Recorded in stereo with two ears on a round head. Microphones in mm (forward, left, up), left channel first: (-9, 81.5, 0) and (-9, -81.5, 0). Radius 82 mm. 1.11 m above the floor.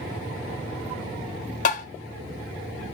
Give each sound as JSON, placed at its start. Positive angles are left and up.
{"t": 1.6, "sound": "tapping", "side_deg": 40, "distance_m": 1.1}